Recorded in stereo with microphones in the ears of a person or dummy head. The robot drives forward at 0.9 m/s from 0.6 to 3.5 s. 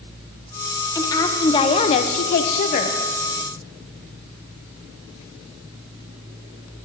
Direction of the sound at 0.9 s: 20° left (ahead or behind).